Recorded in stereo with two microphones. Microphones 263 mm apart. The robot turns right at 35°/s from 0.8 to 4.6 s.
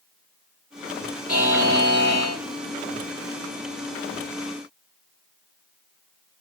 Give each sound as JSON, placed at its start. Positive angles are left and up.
{"t": 1.3, "sound": "a buzzer", "azimuth_deg": 110, "distance_m": 2.5}